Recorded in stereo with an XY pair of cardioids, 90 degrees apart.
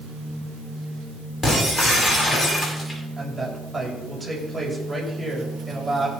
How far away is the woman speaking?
About 7.5 m.